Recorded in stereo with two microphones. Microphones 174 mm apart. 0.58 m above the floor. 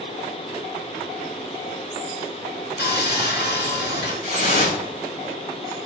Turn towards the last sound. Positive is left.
turn(degrees=55)  # may be behind; listen again after turning